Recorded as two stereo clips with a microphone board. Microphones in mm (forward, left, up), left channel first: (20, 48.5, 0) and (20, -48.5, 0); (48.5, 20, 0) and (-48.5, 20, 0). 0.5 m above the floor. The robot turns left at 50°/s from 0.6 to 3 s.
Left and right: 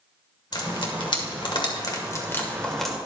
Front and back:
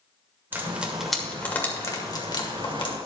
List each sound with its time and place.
0.5 s frying: 115° left, 1.9 m; by 3.0 s 5° right, 1.9 m